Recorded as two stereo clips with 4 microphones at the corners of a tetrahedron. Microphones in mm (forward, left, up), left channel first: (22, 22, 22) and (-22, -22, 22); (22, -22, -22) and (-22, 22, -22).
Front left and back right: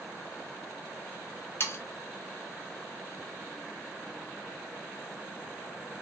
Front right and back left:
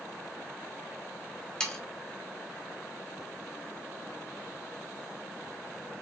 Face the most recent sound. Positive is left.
turn(degrees=25)